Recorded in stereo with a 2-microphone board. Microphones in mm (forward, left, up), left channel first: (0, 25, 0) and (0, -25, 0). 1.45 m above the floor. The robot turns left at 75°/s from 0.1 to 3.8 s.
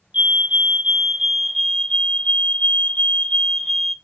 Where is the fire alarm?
30° right (ahead or behind), 0.6 m; by 4.0 s 5° right (ahead or behind), 0.6 m.